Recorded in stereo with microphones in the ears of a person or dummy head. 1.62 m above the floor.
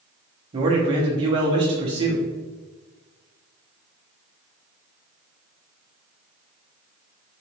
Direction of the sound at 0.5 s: 30° right (ahead or behind).